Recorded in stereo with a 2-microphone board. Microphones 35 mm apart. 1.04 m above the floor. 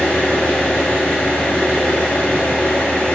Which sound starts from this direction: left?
An engine running, at 0.0 s.